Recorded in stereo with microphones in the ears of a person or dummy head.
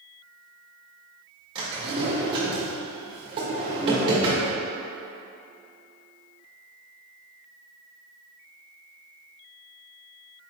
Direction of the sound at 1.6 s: 30° right (ahead or behind).